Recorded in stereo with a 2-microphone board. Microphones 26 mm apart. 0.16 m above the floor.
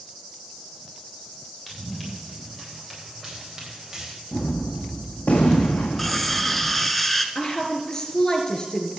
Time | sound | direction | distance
1.7 | running footsteps | centre (ahead or behind) | 9 m
4.3 | a gunshot | 65° left (ahead or behind) | 2 m
6.0 | cutlery clinking | 5° left (ahead or behind) | 1.2 m
7.3 | a woman speaking | 20° left (ahead or behind) | 3 m